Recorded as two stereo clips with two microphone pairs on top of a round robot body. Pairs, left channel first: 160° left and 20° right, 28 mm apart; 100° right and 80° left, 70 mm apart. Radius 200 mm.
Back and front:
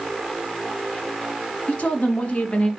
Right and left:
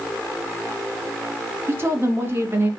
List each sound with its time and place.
1.7 s a woman speaking: 135° left, 2 m